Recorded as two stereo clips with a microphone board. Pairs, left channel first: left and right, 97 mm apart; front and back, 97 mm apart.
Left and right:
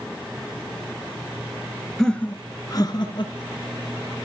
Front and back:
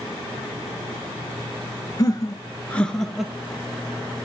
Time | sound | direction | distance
2.0 | laughter | 5° left | 1.5 m